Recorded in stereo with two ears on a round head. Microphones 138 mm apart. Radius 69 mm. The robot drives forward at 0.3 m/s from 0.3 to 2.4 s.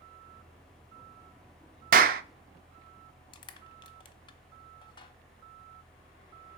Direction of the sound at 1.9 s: 55° right (ahead or behind).